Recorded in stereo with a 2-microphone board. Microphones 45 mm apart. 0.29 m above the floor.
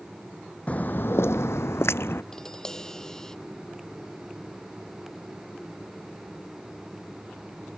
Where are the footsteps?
30° left (ahead or behind); by 2.2 s 60° left (ahead or behind).